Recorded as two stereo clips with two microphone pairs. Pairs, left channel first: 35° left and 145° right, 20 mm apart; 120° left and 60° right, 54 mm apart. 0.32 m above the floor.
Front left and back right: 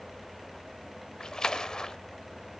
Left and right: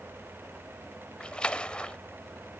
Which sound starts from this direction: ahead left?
A splash, at 1.2 s.